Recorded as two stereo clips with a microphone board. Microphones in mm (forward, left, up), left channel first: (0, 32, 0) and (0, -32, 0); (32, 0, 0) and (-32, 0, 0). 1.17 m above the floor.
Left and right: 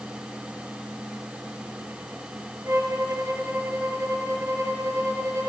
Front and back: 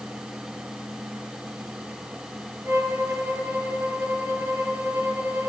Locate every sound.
2.6 s a violin: 130° right, 3.5 m